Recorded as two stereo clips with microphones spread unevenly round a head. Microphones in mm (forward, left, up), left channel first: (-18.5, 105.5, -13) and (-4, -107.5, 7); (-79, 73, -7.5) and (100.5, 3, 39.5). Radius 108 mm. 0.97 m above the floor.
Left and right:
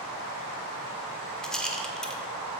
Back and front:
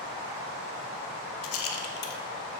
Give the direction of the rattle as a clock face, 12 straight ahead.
6 o'clock.